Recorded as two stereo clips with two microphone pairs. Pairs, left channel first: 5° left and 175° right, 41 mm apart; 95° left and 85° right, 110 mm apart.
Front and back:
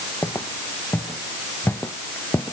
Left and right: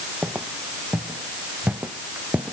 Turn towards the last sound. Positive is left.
turn(degrees=-10)